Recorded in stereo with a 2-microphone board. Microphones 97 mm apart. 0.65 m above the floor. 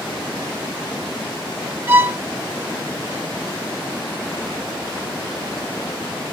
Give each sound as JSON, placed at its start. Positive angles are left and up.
{"t": 1.9, "sound": "a violin", "side_deg": -30, "distance_m": 1.0}